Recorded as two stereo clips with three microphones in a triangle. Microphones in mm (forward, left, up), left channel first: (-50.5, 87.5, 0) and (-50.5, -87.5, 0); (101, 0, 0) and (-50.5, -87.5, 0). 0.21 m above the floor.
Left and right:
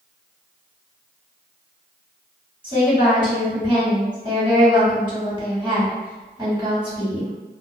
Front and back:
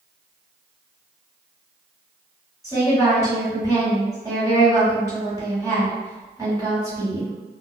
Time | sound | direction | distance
2.6 | a woman speaking | 100° right | 1.7 m